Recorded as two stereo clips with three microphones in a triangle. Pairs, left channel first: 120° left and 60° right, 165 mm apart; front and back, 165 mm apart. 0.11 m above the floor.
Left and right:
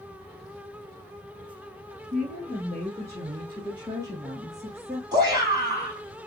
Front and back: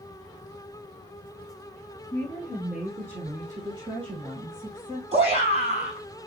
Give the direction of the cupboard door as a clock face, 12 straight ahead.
No cupboard door in this recording.